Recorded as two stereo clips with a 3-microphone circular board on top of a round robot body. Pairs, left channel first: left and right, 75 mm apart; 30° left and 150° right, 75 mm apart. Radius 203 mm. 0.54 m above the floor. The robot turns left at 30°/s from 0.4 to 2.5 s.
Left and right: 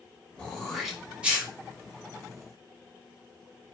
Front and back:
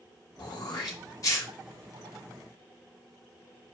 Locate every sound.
0.4 s throat clearing: 10° left, 1.1 m; by 1.5 s 20° right, 1.1 m